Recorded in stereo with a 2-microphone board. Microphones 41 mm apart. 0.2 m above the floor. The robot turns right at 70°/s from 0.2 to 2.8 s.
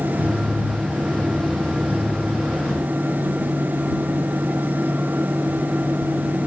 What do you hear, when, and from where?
Only background noise.